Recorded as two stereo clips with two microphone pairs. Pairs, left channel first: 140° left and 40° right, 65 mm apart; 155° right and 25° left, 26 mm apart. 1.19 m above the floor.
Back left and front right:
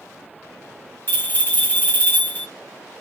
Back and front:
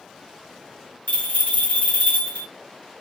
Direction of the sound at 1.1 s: 165° right.